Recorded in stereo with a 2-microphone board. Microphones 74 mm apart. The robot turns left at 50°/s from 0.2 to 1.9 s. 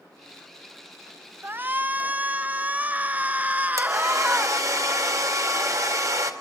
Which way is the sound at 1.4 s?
30° right (ahead or behind).